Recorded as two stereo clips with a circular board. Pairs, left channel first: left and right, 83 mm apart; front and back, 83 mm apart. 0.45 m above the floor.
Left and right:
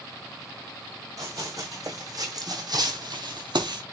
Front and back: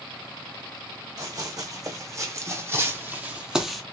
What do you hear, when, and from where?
1.2 s running footsteps: 140° right, 1.8 m; by 3.8 s 85° right, 0.7 m